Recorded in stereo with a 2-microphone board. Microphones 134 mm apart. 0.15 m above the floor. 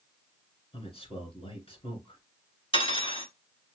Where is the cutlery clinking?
45° left (ahead or behind), 1.2 m.